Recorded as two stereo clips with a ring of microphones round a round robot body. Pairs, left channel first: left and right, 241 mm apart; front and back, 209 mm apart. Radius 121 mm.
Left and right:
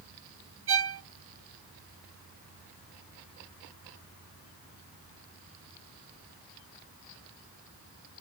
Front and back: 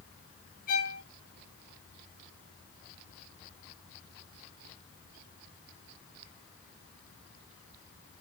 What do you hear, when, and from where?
0.7 s a violin: 55° right, 1.4 m